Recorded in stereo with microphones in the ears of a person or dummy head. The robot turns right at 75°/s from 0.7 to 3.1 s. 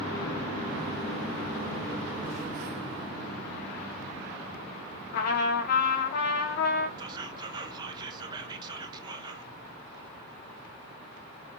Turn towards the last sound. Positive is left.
turn(degrees=-20)  # may be behind; listen again after turning